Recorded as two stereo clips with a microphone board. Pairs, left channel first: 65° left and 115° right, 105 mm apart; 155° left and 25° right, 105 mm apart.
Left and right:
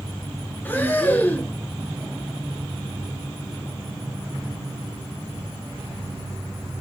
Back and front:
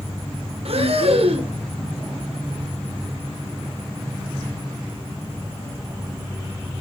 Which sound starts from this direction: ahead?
Breathing, at 0.7 s.